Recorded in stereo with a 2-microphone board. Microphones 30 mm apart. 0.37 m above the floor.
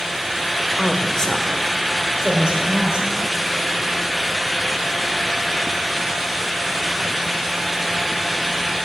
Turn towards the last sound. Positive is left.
turn(degrees=-35)  # may be behind; listen again after turning